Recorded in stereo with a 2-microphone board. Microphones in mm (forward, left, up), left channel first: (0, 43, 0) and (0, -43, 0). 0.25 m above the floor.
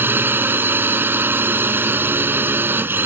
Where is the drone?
25° right (ahead or behind).